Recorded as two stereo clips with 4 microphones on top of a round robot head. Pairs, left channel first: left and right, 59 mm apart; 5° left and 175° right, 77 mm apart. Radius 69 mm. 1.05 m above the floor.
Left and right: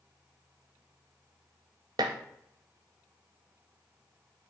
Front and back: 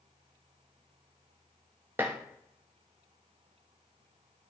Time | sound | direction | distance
2.0 | dishes clattering | 105° right | 0.5 m